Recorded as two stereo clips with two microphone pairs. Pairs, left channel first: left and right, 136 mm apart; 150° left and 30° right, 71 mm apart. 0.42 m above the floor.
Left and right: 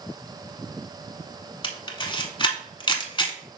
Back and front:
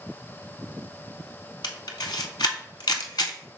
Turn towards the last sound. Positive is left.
turn(degrees=145)